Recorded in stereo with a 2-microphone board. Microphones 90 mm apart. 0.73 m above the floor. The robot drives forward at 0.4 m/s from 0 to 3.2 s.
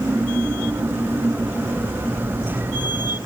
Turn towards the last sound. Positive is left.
No sound to turn to.